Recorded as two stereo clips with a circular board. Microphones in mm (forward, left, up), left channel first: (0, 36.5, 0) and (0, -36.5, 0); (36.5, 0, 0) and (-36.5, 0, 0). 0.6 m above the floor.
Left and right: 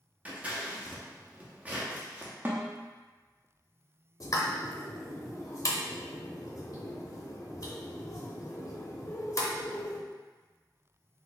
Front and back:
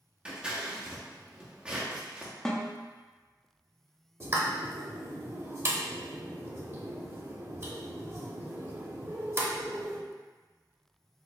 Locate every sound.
0.2 s scissors: 125° right, 0.7 m
2.5 s a snare drum: 65° right, 0.5 m
4.2 s a pop: 130° left, 0.5 m